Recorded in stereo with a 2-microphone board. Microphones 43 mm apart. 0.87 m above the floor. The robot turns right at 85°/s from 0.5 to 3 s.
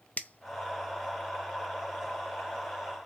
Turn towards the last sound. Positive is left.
turn(degrees=-5)  # may be behind; listen again after turning